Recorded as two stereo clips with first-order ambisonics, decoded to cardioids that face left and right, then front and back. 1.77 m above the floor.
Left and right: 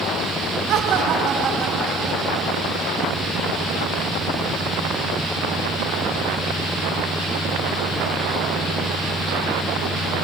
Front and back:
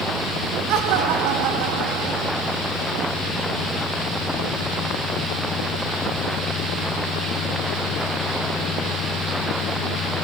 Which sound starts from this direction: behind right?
Laughter, at 0.7 s.